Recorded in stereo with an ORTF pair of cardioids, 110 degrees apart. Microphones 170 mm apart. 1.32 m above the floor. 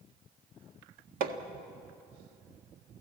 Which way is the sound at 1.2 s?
60° right.